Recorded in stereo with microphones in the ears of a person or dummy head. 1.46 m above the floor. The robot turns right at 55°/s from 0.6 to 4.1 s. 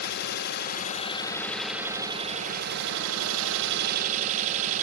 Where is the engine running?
125° left, 1.1 m; by 4.8 s 45° right, 1.1 m.